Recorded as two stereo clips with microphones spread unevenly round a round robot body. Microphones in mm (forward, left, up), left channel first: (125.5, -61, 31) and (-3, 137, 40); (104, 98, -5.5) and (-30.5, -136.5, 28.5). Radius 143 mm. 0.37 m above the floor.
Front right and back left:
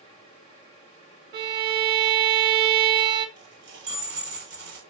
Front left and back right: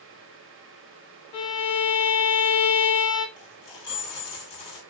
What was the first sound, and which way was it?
A violin, 70° left.